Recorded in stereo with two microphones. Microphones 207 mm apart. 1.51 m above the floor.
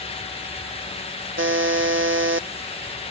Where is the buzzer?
75° right (ahead or behind).